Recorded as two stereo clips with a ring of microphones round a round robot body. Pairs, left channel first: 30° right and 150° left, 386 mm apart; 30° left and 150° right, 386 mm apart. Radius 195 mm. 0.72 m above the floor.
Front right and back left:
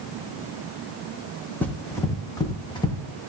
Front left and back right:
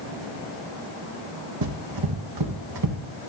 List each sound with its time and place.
1.6 s running footsteps: 115° right, 2 m; by 3.0 s 110° right, 2.5 m